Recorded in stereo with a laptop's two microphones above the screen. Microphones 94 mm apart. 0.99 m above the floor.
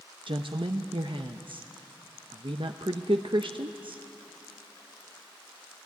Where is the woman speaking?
65° right (ahead or behind), 0.7 m.